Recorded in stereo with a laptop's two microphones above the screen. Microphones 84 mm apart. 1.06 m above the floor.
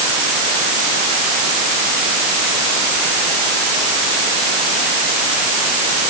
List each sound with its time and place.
Only background noise.